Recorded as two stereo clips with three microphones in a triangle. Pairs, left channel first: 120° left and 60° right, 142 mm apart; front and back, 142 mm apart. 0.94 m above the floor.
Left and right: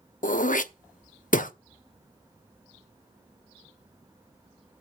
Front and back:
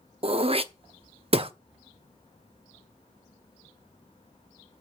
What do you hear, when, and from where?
0.2 s throat clearing: 135° left, 0.7 m